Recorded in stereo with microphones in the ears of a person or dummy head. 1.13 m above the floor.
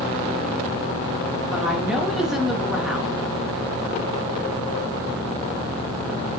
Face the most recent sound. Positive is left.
turn(degrees=-5)  # may be behind; listen again after turning